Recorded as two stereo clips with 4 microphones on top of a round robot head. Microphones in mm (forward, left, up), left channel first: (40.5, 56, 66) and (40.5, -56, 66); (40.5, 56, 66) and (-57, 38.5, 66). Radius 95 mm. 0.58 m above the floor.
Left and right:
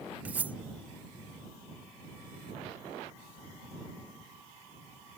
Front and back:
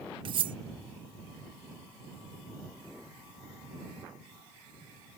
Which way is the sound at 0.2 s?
165° right.